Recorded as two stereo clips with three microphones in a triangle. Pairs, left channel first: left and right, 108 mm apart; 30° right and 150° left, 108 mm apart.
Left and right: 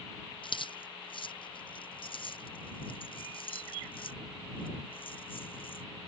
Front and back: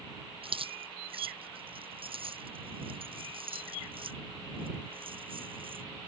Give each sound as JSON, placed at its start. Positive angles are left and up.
{"t": 0.4, "sound": "keys jangling", "azimuth_deg": 125}